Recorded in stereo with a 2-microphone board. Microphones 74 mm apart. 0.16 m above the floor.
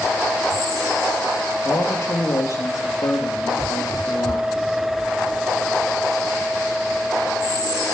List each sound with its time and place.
1.6 s a man speaking: 40° left (ahead or behind), 3 m; by 4.5 s 70° left (ahead or behind), 4 m